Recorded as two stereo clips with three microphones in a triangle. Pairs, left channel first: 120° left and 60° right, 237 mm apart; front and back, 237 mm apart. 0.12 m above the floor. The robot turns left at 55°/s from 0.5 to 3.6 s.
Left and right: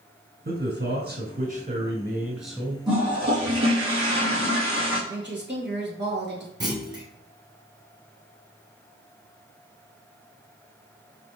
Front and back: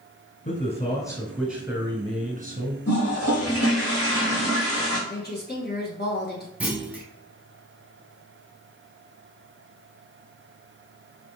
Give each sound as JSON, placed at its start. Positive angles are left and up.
{"t": 0.5, "sound": "a man speaking", "azimuth_deg": -40, "distance_m": 1.4}
{"t": 2.9, "sound": "a toilet flushing", "azimuth_deg": 15, "distance_m": 2.0}
{"t": 5.1, "sound": "a woman speaking", "azimuth_deg": -35, "distance_m": 1.8}
{"t": 6.6, "sound": "a clunk", "azimuth_deg": -105, "distance_m": 1.2}